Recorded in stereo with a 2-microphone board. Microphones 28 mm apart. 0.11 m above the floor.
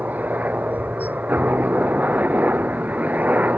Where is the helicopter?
75° right (ahead or behind); by 3.6 s 65° right (ahead or behind).